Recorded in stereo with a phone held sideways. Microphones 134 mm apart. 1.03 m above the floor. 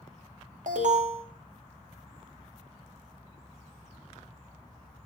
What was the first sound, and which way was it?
An alarm, 70° right (ahead or behind).